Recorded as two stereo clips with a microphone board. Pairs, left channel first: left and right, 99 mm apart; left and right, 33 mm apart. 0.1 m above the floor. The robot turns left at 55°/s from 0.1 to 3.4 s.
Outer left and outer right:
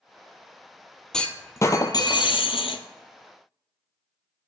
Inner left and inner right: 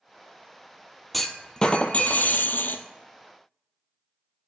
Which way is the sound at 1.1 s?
175° left.